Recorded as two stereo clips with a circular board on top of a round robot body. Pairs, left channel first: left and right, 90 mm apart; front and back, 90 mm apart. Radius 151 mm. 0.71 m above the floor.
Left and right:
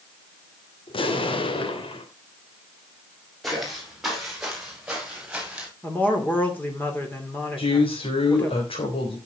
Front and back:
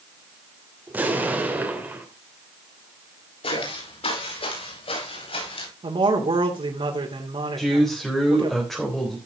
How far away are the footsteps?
About 6.5 m.